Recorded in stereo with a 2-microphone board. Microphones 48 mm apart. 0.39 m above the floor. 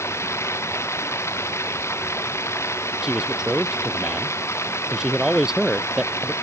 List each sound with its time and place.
0.0 s running water: 65° left (ahead or behind)
3.0 s a man speaking: 15° right (ahead or behind)